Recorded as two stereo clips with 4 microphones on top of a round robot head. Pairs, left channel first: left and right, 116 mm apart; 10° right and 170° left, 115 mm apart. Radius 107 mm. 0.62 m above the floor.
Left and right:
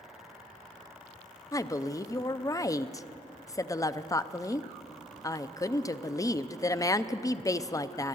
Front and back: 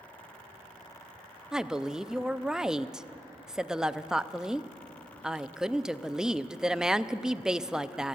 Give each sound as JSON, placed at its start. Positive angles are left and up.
{"t": 1.5, "sound": "a woman speaking", "azimuth_deg": 90, "distance_m": 0.5}